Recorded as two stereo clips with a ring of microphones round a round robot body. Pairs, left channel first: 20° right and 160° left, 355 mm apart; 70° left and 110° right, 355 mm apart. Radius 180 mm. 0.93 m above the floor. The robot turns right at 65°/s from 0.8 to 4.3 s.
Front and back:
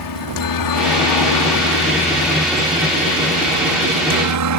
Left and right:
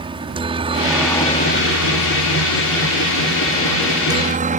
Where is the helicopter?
40° right; by 4.6 s straight behind.